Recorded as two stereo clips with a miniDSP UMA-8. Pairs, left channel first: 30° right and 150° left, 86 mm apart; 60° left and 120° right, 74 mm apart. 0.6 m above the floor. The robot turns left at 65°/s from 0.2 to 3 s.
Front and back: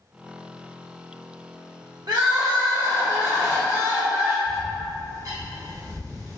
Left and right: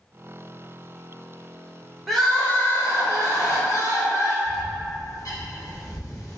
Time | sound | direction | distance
2.1 | crying | 150° left | 0.8 m
4.5 | a bird | 100° left | 0.7 m